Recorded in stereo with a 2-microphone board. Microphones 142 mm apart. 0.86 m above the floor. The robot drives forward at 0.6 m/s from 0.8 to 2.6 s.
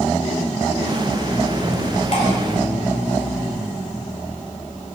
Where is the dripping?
55° left (ahead or behind), 3 m.